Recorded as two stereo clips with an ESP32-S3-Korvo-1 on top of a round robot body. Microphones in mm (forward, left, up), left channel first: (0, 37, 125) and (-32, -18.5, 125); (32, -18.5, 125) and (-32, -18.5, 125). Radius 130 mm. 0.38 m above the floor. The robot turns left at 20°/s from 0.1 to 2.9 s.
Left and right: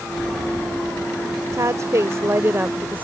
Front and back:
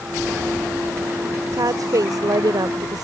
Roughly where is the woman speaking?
Behind right.